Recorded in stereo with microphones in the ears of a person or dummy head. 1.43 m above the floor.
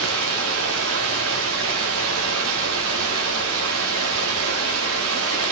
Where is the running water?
85° right, 3.5 m.